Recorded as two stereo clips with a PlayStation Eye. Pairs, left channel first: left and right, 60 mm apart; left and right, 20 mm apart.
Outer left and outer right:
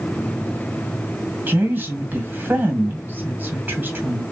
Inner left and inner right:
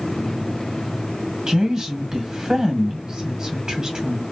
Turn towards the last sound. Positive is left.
turn(degrees=-35)  # may be behind; listen again after turning